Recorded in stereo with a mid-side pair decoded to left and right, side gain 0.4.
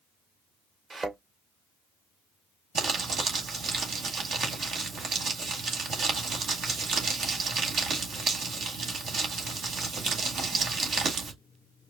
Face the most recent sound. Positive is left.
turn(degrees=-70)